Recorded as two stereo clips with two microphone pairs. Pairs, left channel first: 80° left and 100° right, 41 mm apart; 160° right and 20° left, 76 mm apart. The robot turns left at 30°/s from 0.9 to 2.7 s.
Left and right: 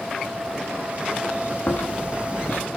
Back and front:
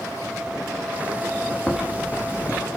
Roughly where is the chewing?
Left.